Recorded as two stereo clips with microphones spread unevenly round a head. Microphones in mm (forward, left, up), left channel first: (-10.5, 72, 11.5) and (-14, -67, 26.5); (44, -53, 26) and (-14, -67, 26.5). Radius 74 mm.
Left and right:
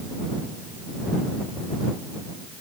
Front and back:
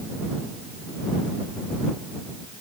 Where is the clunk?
I don't hear a clunk.